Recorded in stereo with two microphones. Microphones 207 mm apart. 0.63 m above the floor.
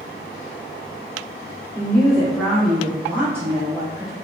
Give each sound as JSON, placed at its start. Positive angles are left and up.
{"t": 1.8, "sound": "a woman speaking", "side_deg": 5, "distance_m": 0.9}